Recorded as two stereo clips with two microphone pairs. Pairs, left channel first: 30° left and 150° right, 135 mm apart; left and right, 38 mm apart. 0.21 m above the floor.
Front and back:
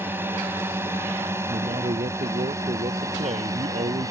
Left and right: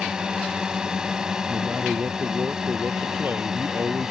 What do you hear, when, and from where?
0.0 s a drone: 110° right; by 4.1 s 145° right
1.5 s a man speaking: 125° right